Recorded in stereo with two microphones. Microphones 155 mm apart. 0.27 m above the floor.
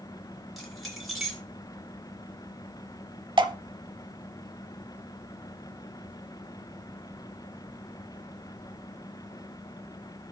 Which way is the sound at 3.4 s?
30° right (ahead or behind).